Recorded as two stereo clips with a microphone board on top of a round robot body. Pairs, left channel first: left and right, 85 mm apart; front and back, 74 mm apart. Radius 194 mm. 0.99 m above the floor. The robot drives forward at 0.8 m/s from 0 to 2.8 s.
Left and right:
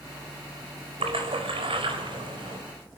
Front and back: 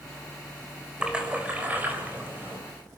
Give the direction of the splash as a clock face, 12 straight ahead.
3 o'clock.